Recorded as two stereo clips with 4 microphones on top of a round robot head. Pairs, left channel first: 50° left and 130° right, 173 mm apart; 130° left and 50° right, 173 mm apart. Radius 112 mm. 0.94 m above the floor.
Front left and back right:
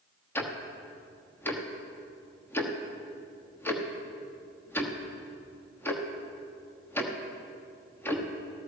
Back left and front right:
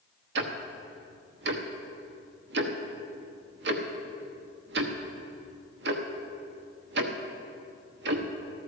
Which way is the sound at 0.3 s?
30° right.